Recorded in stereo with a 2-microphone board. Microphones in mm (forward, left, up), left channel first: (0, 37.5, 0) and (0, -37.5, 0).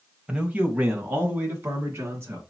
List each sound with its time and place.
0.3 s a man speaking: 15° right (ahead or behind), 1.1 m; by 2.4 s 35° right (ahead or behind), 3 m